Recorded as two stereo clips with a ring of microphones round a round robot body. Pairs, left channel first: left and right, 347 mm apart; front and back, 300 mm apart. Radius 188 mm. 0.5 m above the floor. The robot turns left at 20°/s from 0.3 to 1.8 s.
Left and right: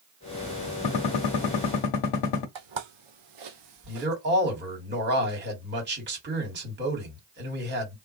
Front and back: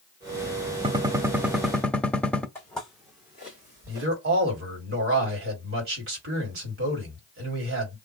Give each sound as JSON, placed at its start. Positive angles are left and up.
{"t": 0.8, "sound": "a gunshot", "azimuth_deg": 105, "distance_m": 0.8}
{"t": 2.5, "sound": "footsteps", "azimuth_deg": -80, "distance_m": 1.0}
{"t": 3.9, "sound": "a man speaking", "azimuth_deg": -145, "distance_m": 1.9}